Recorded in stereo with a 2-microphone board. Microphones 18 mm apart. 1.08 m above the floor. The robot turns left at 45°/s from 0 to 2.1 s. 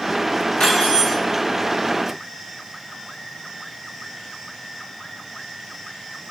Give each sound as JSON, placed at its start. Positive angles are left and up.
{"t": 0.6, "sound": "cutlery clinking", "side_deg": 70, "distance_m": 1.1}